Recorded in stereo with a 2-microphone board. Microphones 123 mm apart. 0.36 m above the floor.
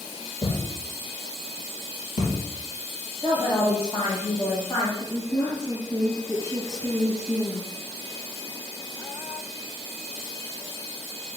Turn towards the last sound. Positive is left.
turn(degrees=10)  # may be behind; listen again after turning